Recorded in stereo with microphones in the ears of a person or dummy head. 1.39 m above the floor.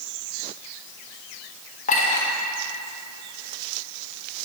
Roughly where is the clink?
Left.